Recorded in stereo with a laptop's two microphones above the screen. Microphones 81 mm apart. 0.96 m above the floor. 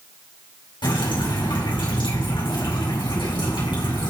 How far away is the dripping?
About 4.5 m.